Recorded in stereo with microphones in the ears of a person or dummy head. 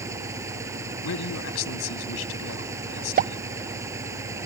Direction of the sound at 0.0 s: 10° right (ahead or behind).